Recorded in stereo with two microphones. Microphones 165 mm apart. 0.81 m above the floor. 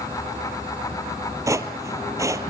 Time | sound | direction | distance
1.5 | footsteps | 20° right (ahead or behind) | 1.2 m